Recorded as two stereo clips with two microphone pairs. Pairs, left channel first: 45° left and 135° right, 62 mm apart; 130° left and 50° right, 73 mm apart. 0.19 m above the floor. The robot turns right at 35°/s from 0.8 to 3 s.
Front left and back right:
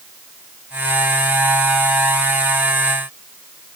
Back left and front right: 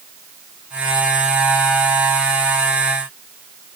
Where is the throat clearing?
No throat clearing in this recording.